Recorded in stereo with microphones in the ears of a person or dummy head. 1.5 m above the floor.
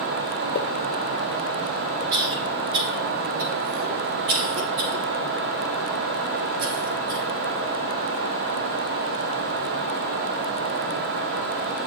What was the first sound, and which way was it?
A pop, 50° left (ahead or behind).